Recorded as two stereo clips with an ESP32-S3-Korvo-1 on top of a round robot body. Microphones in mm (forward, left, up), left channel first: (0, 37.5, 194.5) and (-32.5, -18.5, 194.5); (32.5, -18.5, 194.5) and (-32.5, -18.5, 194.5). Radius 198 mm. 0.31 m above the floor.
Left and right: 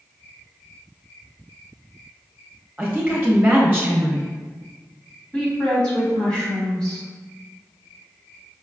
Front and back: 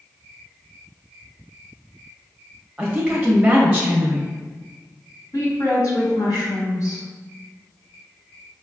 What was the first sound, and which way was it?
A woman speaking, 125° right.